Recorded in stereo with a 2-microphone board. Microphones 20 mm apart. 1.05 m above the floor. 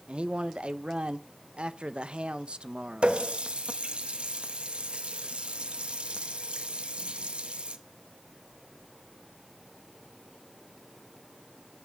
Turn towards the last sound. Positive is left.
turn(degrees=-70)  # may be behind; listen again after turning